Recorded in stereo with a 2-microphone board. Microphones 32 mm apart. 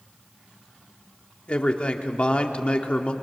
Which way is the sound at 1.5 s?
35° left (ahead or behind).